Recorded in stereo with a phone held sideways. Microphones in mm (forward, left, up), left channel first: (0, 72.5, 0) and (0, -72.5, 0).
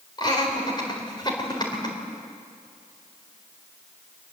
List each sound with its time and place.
0.2 s laughter: 30° left (ahead or behind), 3.5 m